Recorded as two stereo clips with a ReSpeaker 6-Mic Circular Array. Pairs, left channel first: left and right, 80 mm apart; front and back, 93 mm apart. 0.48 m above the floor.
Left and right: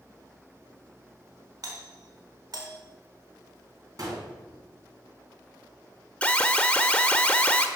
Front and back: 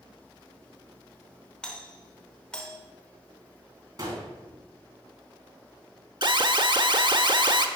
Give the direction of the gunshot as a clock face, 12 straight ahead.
4 o'clock.